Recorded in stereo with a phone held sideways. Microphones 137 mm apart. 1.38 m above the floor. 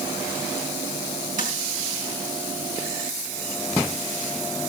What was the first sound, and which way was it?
Tapping, 80° right.